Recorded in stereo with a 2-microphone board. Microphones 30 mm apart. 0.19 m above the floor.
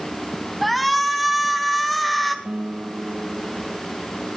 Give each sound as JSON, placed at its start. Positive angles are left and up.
{"t": 0.6, "sound": "a shout", "side_deg": 5, "distance_m": 1.7}
{"t": 2.5, "sound": "a guitar", "side_deg": -80, "distance_m": 4.5}